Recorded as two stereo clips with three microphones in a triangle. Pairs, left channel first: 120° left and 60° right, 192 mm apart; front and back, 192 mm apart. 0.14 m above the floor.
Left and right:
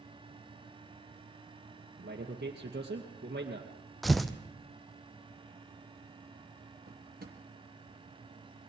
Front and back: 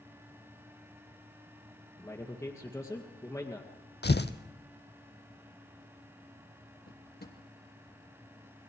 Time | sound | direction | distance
2.0 | a man speaking | 75° right | 2 m
4.0 | tearing paper | 30° left | 0.9 m
6.9 | a drawer | 25° right | 2.5 m